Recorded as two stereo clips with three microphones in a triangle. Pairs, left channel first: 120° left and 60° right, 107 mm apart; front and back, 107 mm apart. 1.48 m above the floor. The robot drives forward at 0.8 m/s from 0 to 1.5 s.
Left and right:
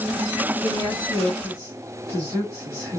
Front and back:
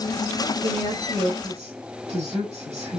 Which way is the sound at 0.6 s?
175° right.